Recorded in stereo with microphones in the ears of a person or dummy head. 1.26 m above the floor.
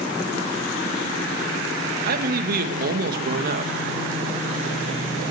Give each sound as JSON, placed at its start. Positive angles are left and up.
{"t": 2.1, "sound": "a man speaking", "side_deg": -50, "distance_m": 1.3}